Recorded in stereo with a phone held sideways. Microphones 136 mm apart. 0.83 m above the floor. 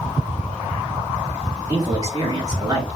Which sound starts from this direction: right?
A man speaking, at 1.7 s.